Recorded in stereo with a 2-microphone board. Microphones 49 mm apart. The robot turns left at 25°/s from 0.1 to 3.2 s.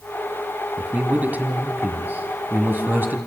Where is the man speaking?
45° right, 2.0 m; by 3.2 s 105° right, 2.0 m.